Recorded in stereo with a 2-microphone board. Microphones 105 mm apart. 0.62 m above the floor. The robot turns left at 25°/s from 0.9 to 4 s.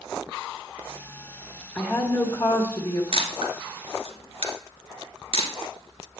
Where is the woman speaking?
160° left, 1.3 m; by 3.0 s 125° left, 1.3 m.